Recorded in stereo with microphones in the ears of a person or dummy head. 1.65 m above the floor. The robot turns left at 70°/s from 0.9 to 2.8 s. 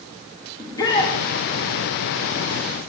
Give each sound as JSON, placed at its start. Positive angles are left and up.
{"t": 0.6, "sound": "a shout", "side_deg": 20, "distance_m": 2.5}